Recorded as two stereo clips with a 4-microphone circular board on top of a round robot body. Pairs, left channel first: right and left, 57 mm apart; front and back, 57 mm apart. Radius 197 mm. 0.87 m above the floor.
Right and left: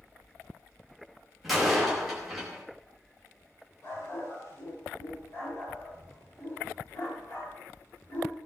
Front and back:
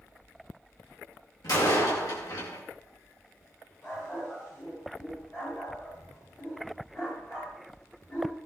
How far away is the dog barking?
About 8 m.